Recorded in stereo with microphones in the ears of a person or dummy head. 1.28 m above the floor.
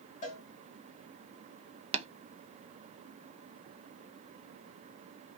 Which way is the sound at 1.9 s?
30° right (ahead or behind).